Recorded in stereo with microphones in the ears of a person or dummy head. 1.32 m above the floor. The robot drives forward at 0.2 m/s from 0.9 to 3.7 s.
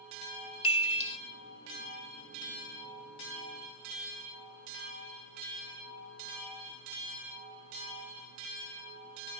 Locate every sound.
0.6 s a chime: 35° left (ahead or behind), 0.6 m